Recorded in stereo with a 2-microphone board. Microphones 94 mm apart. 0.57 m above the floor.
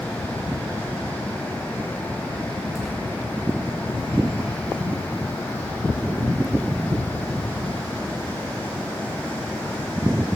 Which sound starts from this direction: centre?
Tearing paper, at 2.8 s.